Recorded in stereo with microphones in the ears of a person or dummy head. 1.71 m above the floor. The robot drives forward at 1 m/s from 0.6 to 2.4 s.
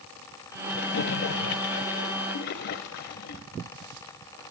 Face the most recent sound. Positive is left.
turn(degrees=65)  # may be behind; listen again after turning